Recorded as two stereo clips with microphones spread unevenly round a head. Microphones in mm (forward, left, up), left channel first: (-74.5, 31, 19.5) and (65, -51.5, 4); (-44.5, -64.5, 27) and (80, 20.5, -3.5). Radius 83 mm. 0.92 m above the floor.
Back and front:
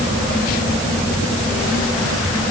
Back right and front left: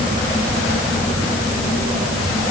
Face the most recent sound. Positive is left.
No sound to turn to.